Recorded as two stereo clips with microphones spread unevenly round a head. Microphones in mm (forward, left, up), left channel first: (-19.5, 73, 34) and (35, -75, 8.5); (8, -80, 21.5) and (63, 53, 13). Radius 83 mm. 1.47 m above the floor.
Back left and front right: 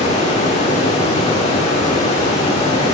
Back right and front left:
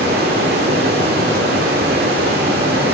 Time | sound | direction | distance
0.0 | running water | 75° left | 1.8 m